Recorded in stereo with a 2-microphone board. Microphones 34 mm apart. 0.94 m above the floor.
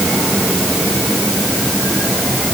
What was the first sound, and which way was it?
Only background noise.